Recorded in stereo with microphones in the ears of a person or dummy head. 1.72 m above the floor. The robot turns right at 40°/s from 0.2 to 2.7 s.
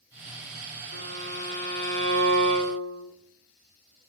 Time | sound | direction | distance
0.9 | a violin | 40° left | 3.5 m